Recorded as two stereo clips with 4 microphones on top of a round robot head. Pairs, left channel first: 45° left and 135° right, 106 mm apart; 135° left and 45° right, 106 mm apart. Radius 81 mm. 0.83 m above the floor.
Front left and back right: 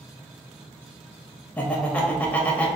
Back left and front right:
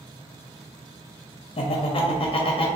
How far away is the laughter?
About 0.5 m.